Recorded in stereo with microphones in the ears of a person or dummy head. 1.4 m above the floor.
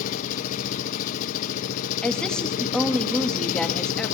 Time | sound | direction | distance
0.0 | an engine running | 55° left (ahead or behind) | 1.0 m
2.0 | a woman speaking | centre (ahead or behind) | 2.5 m